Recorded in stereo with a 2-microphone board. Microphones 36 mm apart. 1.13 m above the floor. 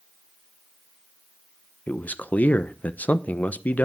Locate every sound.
1.9 s a man speaking: 55° left (ahead or behind), 0.9 m